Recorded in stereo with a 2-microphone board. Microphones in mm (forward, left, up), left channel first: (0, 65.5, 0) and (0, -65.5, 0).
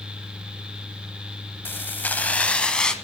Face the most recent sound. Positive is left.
turn(degrees=5)  # may be behind; listen again after turning